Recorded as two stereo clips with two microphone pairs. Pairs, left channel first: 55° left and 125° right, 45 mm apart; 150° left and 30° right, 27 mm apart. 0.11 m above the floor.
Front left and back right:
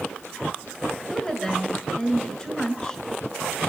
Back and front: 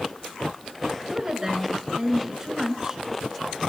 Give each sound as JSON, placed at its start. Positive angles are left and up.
{"t": 1.1, "sound": "a woman speaking", "azimuth_deg": 0, "distance_m": 1.6}